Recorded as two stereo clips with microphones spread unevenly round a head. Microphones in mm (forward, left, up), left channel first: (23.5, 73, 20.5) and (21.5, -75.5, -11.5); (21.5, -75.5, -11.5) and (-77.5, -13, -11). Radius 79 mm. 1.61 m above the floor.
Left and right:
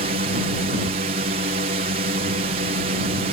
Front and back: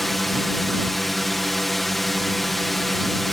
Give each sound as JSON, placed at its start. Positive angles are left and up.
{"t": 0.0, "sound": "a drone", "azimuth_deg": -120}